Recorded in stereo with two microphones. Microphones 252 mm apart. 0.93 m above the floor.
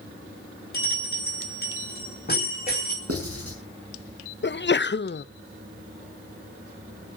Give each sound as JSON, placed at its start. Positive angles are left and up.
{"t": 0.7, "sound": "a bell", "side_deg": 40, "distance_m": 5.0}
{"t": 3.1, "sound": "writing", "side_deg": -65, "distance_m": 5.5}
{"t": 4.4, "sound": "a sneeze", "side_deg": 45, "distance_m": 0.6}